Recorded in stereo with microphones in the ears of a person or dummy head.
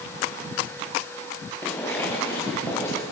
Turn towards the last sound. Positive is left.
turn(degrees=15)  # may be behind; listen again after turning